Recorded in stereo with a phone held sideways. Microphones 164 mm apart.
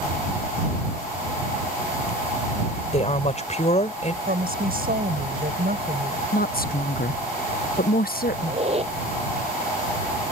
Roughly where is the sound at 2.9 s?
Left.